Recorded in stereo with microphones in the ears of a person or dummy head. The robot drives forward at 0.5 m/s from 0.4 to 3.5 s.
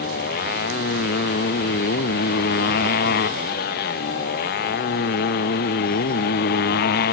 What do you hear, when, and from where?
0.0 s a motorcycle: 55° left (ahead or behind); by 7.1 s 60° left (ahead or behind)